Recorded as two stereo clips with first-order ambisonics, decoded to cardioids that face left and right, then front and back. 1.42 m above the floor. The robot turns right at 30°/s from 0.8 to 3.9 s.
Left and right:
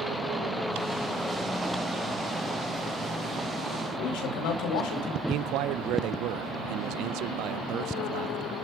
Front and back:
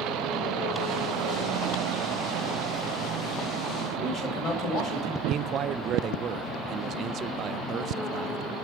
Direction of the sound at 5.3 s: 125° right.